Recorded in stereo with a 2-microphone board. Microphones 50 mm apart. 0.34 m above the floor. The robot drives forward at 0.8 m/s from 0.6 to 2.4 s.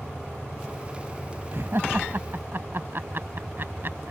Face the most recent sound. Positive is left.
turn(degrees=-50)  # may be behind; listen again after turning